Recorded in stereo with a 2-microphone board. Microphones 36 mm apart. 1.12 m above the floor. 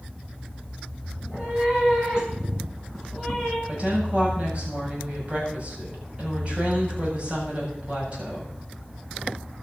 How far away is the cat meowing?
About 5 m.